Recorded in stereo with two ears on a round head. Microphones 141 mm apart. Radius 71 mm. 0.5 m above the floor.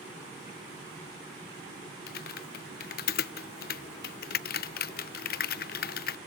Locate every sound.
2.1 s typing on a keyboard: 65° left (ahead or behind), 0.5 m